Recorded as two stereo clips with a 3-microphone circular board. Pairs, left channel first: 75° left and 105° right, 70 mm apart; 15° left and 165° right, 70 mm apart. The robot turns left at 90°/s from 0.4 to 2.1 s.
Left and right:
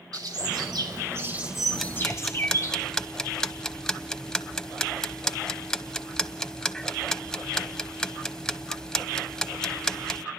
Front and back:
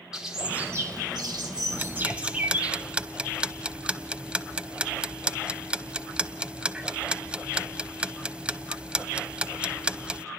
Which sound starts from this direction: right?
A bird, at 0.1 s.